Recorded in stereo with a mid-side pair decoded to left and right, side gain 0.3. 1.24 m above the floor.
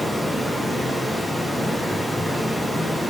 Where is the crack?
I don't hear a crack.